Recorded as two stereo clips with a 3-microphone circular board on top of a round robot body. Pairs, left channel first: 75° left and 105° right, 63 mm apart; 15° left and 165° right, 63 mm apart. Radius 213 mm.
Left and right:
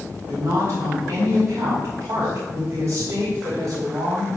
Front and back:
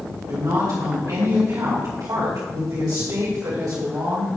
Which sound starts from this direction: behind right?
A woman speaking, at 0.3 s.